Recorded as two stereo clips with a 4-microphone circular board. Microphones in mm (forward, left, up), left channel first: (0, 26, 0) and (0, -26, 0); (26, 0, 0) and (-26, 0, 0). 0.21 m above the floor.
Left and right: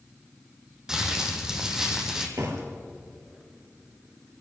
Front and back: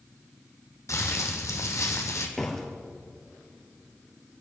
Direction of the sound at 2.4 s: 85° right.